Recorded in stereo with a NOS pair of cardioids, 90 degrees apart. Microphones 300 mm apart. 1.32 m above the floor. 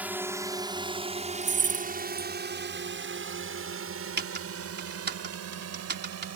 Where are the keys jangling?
40° right.